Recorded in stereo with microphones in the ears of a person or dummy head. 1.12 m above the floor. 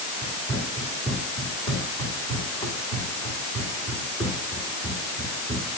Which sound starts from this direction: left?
Running footsteps, at 0.2 s.